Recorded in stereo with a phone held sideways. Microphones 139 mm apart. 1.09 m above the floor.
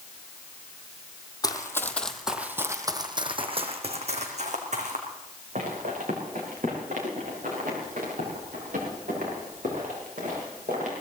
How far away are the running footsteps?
About 1.6 m.